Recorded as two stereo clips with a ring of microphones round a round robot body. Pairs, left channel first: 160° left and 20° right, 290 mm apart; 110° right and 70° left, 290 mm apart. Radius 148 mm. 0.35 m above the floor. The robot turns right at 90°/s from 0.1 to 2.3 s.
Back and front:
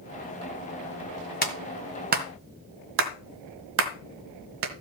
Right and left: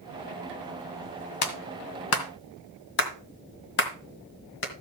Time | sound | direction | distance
1.4 | a clap | 145° right | 1.9 m